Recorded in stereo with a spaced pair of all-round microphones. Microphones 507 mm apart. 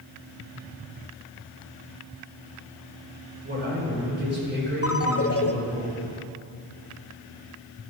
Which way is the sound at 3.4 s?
20° right (ahead or behind).